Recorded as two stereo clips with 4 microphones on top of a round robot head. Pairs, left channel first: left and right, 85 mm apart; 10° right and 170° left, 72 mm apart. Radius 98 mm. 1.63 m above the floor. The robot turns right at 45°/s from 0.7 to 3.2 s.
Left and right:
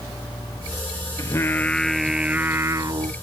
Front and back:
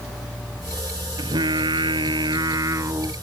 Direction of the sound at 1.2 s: 140° left.